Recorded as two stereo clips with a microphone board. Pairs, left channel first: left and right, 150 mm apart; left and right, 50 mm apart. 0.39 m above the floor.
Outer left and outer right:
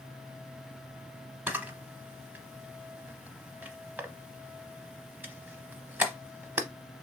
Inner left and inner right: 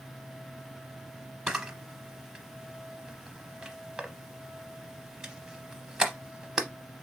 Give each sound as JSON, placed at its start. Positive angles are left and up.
{"t": 1.5, "sound": "a camera shutter", "side_deg": -15, "distance_m": 0.7}